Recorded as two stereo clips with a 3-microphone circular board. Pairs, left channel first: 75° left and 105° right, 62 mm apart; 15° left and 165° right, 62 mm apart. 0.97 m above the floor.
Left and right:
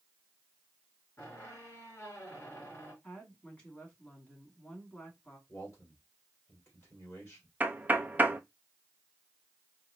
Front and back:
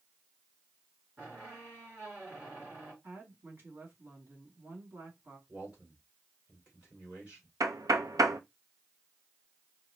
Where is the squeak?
130° left, 3.5 m.